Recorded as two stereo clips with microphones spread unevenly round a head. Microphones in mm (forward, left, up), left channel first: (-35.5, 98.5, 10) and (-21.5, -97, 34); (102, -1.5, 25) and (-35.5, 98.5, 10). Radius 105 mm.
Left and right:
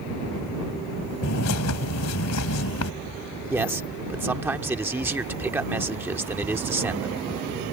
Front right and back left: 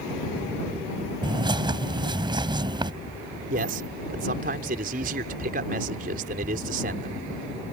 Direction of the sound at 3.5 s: 165° right.